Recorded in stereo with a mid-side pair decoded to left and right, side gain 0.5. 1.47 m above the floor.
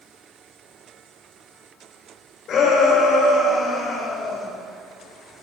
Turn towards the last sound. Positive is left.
turn(degrees=55)